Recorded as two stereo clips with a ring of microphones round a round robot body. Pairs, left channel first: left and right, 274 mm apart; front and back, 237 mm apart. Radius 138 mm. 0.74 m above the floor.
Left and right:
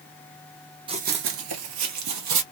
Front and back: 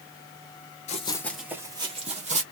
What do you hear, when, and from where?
0.9 s running footsteps: 35° right, 0.8 m; by 2.4 s 115° right, 1.8 m